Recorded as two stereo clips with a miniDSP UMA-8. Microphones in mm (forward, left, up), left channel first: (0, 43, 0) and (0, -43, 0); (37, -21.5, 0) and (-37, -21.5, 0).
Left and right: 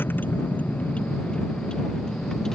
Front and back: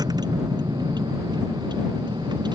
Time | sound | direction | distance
0.0 | a vehicle | 155° left | ?